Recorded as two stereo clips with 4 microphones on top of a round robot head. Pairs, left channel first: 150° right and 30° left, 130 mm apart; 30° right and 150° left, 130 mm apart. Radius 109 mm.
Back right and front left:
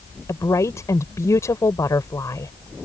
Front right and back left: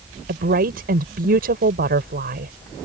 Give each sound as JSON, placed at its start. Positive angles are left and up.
{"t": 0.3, "sound": "a woman speaking", "azimuth_deg": 145}